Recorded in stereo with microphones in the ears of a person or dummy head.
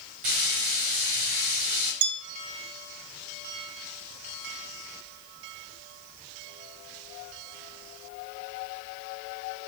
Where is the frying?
40° right (ahead or behind), 1.4 m.